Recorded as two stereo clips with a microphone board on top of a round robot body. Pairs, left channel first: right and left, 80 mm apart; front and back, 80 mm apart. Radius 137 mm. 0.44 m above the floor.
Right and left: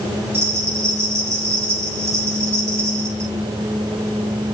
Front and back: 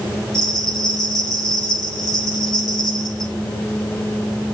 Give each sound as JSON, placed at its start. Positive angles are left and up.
{"t": 0.3, "sound": "a bell", "azimuth_deg": 30, "distance_m": 5.0}